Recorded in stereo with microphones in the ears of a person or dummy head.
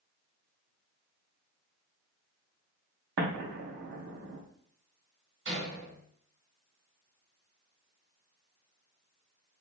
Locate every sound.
3.2 s an explosion: 60° right (ahead or behind), 0.7 m
5.5 s a door slam: 65° right (ahead or behind), 1.5 m